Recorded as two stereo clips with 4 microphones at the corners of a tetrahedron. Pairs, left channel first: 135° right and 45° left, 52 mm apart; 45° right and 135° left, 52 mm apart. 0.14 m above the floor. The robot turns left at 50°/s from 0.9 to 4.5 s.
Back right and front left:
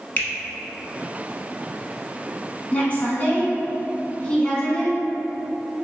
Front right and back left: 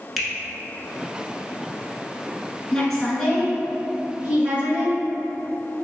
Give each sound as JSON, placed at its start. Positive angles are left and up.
{"t": 0.2, "sound": "a finger snap", "azimuth_deg": -130, "distance_m": 1.0}
{"t": 2.7, "sound": "a woman speaking", "azimuth_deg": -110, "distance_m": 1.2}